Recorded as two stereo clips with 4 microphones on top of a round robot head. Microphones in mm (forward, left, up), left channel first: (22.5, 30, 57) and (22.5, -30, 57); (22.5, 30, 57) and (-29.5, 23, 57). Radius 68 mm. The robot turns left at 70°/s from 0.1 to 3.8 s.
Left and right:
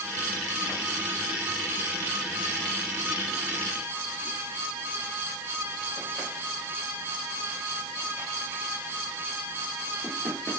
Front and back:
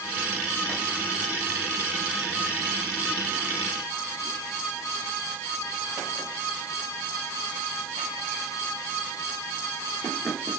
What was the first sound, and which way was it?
Only background noise.